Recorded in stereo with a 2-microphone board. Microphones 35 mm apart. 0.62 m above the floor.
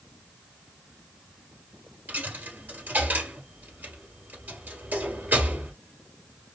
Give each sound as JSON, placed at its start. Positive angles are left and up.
{"t": 2.1, "sound": "a dropped coin", "side_deg": -60, "distance_m": 1.8}